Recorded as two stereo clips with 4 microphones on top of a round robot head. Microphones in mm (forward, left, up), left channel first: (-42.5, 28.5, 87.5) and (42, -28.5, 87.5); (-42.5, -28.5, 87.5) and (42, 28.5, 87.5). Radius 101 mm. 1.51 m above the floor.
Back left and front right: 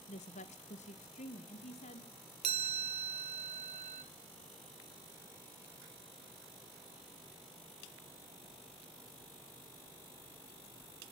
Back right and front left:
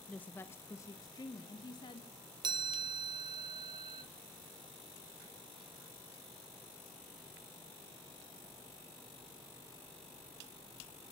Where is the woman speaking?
135° left, 0.9 m; by 2.1 s 165° left, 1.8 m.